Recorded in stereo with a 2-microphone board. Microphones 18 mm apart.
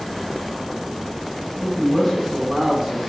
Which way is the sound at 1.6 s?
30° left (ahead or behind).